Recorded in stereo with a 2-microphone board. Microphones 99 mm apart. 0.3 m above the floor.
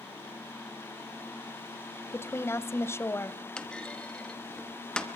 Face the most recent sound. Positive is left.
turn(degrees=10)  # may be behind; listen again after turning